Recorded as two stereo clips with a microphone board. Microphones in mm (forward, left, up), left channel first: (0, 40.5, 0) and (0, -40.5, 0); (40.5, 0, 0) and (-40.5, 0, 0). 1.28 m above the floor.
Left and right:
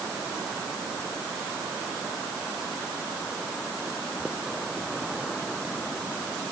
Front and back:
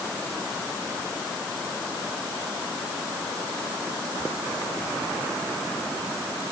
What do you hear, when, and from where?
Only background noise.